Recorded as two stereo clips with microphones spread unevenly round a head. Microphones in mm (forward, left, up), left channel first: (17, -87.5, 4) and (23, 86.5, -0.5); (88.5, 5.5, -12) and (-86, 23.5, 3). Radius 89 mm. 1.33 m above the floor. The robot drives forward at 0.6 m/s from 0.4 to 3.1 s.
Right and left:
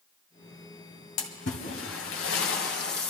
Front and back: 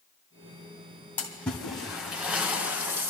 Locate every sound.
1.2 s a splash: 90° right, 2.5 m; by 3.1 s 115° right, 3 m